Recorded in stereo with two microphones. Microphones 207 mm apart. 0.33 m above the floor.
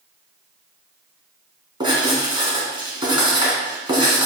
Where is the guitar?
No guitar in this recording.